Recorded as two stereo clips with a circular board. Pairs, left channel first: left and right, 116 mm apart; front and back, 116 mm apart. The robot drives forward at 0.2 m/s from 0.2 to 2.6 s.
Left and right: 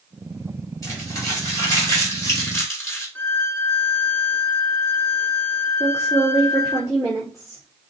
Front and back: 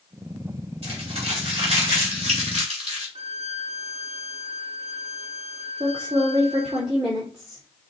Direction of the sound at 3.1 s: 165° left.